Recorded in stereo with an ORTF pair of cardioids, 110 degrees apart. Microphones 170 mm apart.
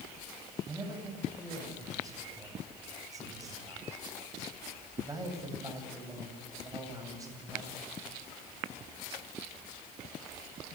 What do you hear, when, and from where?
0.7 s a man speaking: 20° right, 8 m